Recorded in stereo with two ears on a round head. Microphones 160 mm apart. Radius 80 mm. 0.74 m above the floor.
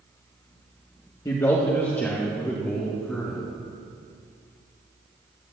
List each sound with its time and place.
1.2 s a man speaking: 20° left (ahead or behind), 1.2 m; by 3.4 s 5° left (ahead or behind), 3 m